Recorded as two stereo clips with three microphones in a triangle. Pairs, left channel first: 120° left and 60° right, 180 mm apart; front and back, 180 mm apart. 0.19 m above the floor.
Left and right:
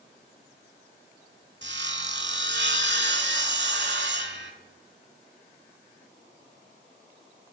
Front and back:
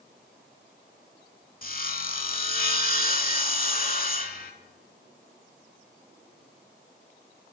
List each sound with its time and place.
1.6 s sawing: 40° right, 0.5 m